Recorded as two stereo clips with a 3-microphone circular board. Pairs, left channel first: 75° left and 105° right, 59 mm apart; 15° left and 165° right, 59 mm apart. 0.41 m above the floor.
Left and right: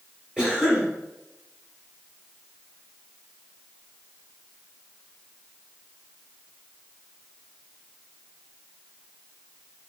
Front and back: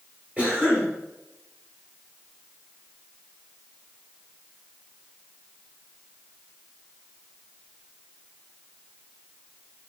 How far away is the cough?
About 1.4 m.